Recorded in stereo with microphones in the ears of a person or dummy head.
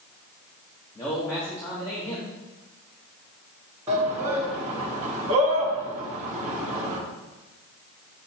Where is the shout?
15° right (ahead or behind), 1.1 m.